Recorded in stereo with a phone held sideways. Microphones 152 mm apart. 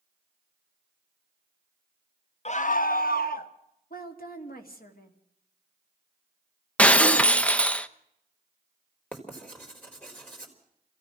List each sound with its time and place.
2.5 s a scream: 45° left (ahead or behind), 0.6 m; by 3.5 s 75° left (ahead or behind), 1.8 m
3.9 s a woman speaking: 75° left (ahead or behind), 2.5 m
6.8 s breaking glass: 10° left (ahead or behind), 0.8 m
9.1 s writing: 10° left (ahead or behind), 4 m